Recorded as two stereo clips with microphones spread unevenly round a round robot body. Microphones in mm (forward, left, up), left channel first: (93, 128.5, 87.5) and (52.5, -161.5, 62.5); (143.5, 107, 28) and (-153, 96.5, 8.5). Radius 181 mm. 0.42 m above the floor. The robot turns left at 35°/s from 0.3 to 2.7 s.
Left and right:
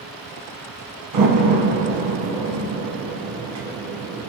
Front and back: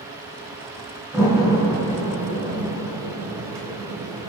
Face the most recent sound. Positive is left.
turn(degrees=-145)